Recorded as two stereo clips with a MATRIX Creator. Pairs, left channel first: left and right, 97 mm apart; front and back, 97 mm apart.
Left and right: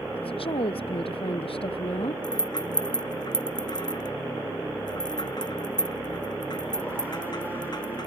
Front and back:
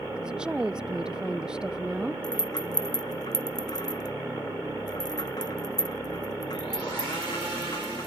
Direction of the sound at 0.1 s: 100° left.